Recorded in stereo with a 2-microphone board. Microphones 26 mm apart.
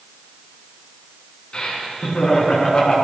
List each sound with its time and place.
1.5 s laughter: 35° left (ahead or behind), 4.5 m